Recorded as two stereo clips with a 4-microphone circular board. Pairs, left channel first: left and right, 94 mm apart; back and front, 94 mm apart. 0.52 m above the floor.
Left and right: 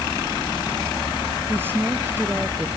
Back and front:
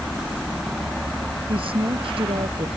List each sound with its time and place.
1.5 s a woman speaking: 20° right